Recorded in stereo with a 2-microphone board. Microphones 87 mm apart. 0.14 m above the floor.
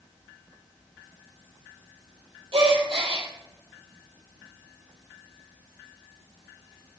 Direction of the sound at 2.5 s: 75° right (ahead or behind).